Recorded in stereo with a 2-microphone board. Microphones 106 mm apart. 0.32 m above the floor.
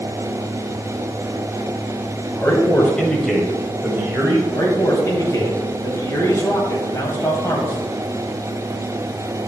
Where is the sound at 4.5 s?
30° left (ahead or behind), 1.6 m.